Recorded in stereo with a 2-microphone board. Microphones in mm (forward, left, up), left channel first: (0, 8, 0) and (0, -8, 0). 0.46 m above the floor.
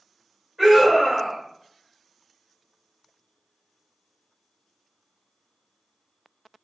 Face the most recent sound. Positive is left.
turn(degrees=-10)  # may be behind; listen again after turning